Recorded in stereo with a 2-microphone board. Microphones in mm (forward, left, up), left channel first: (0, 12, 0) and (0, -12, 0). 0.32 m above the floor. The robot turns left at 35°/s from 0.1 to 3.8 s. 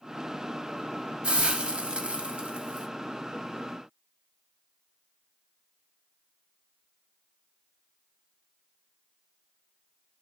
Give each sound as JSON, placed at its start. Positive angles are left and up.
{"t": 1.2, "sound": "a hiss", "azimuth_deg": -75, "distance_m": 0.6}